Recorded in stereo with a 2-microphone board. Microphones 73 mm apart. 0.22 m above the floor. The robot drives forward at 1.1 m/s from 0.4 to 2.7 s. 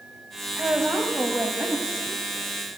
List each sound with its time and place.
0.6 s a woman speaking: 15° right (ahead or behind), 1.3 m; by 2.8 s 10° right (ahead or behind), 2.5 m